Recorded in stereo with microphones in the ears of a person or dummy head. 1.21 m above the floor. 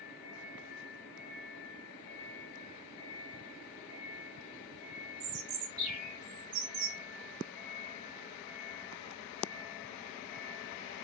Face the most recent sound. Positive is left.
turn(degrees=-40)  # may be behind; listen again after turning